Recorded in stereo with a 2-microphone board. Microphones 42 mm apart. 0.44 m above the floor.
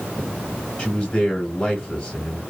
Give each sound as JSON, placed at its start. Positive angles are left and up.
{"t": 0.8, "sound": "a man speaking", "side_deg": 20, "distance_m": 1.2}